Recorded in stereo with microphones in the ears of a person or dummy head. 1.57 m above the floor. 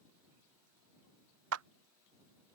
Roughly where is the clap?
Right.